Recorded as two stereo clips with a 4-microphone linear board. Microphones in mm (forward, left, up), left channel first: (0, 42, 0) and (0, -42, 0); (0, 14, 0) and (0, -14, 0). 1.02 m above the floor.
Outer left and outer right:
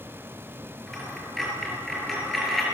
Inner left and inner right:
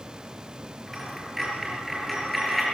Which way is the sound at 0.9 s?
Centre (ahead or behind).